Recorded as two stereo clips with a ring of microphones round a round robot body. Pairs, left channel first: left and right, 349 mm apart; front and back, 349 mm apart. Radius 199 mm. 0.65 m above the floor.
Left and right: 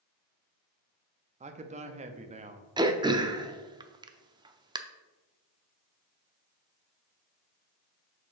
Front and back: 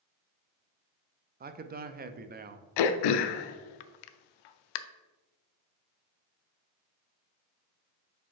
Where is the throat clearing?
10° right, 0.5 m.